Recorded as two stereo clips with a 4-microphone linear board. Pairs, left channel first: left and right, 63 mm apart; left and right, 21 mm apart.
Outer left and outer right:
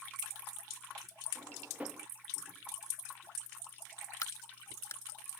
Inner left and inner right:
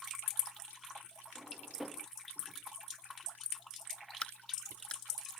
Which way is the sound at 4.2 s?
55° left (ahead or behind).